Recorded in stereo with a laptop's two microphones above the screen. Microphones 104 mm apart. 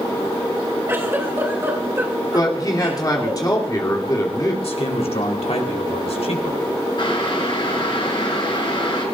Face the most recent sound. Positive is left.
turn(degrees=55)  # may be behind; listen again after turning